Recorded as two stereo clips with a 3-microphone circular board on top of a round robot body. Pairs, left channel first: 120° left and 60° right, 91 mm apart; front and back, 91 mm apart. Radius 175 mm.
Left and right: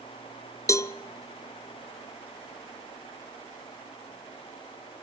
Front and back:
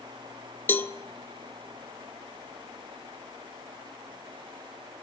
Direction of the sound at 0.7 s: 65° left.